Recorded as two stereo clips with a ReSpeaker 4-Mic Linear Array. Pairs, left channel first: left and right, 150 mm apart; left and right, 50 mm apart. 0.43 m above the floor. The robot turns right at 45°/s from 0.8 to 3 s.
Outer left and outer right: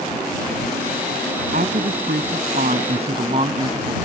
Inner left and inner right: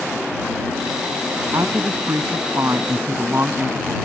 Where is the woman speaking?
110° right; by 4.0 s 45° right.